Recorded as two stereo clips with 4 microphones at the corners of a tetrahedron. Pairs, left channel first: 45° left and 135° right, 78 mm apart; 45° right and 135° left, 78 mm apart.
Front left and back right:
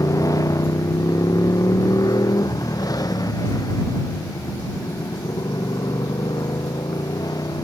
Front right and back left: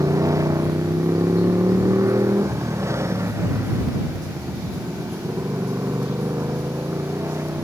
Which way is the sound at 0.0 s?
85° left.